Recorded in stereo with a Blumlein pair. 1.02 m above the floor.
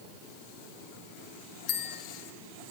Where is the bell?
40° left, 0.7 m.